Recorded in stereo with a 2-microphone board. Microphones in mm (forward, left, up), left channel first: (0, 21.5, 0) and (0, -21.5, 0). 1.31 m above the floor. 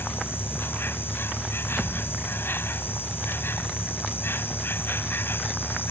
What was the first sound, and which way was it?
An insect, 60° left (ahead or behind).